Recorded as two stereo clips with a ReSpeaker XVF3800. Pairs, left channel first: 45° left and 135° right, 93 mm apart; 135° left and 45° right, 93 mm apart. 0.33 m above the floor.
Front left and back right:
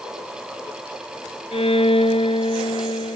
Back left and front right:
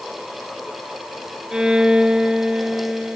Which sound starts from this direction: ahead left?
A violin, at 1.5 s.